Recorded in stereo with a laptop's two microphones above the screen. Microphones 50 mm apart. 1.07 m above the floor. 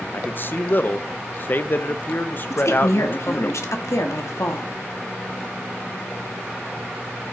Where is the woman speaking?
70° left (ahead or behind), 1.5 m.